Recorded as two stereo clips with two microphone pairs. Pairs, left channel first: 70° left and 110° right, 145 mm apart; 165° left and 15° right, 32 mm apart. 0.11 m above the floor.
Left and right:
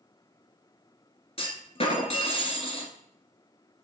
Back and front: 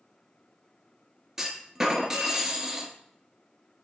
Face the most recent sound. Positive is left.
turn(degrees=55)